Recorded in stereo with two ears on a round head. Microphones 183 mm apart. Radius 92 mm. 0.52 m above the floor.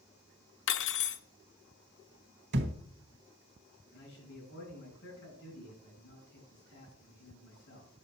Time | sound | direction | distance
0.7 | cutlery clinking | 60° left (ahead or behind) | 0.7 m
2.5 | a thud | 55° right (ahead or behind) | 1.2 m
3.9 | a man speaking | 55° left (ahead or behind) | 5 m